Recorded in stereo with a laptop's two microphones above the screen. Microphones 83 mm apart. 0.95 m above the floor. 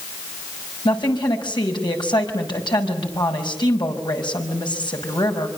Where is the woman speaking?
65° left (ahead or behind), 6 m.